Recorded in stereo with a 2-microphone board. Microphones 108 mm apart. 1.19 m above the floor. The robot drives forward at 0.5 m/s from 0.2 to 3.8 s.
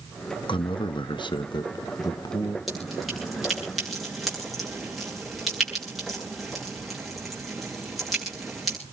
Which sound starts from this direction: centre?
Dripping, at 2.7 s.